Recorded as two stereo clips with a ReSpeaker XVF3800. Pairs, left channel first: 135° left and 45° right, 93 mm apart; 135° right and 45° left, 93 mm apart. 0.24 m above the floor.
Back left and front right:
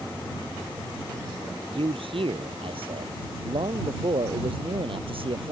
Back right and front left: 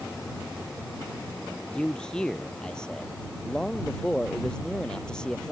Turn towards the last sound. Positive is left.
turn(degrees=-55)